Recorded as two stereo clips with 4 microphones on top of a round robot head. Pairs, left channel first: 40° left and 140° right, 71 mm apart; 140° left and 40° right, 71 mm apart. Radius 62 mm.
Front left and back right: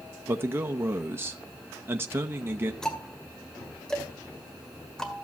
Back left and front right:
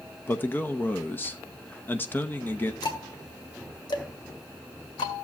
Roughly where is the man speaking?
Behind.